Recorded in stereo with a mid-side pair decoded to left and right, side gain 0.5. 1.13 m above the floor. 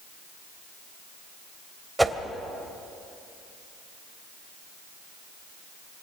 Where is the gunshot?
No gunshot in this recording.